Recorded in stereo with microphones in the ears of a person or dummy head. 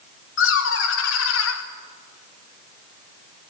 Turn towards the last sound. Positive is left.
turn(degrees=85)